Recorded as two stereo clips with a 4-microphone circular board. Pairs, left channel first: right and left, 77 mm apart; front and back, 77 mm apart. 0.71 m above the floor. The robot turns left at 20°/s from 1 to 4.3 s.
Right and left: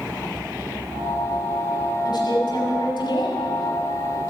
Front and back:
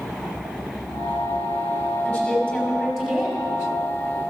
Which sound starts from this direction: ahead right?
A woman speaking, at 2.0 s.